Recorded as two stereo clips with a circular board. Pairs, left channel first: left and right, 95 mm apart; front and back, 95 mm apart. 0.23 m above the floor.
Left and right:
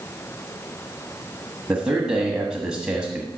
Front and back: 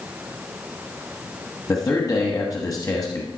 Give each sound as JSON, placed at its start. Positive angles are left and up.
{"t": 1.7, "sound": "a man speaking", "azimuth_deg": -15, "distance_m": 1.2}